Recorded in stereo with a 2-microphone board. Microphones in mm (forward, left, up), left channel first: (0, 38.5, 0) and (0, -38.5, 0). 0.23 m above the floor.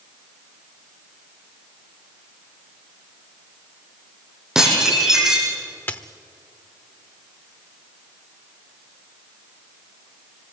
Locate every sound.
4.5 s dishes clattering: 10° right (ahead or behind), 7 m
5.9 s a dropped coin: 30° left (ahead or behind), 1.0 m